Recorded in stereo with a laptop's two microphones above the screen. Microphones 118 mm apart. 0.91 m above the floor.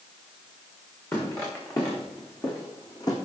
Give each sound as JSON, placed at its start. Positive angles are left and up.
{"t": 1.1, "sound": "footsteps", "side_deg": 25, "distance_m": 5.0}